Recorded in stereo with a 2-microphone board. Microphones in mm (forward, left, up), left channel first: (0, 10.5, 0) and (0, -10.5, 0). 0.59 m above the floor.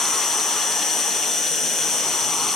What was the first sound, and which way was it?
An insect, 15° left (ahead or behind).